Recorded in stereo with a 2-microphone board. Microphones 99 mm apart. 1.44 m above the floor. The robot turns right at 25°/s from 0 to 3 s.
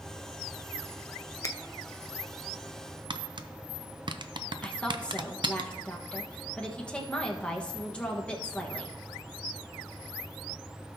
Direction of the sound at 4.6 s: 10° left (ahead or behind).